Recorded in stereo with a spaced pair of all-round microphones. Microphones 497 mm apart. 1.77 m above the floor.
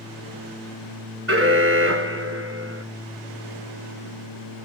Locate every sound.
1.3 s an alarm: 25° right (ahead or behind), 1.6 m